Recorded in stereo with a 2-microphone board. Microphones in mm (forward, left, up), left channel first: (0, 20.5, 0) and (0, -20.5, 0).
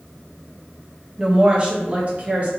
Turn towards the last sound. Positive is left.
turn(degrees=-40)  # may be behind; listen again after turning